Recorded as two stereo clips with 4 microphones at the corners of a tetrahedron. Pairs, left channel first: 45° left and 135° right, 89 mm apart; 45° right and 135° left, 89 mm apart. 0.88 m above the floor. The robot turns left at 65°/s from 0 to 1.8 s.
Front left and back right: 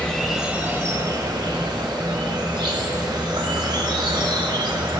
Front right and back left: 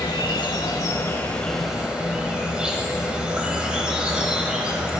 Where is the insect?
30° right, 1.0 m; by 5.0 s 145° right, 1.0 m.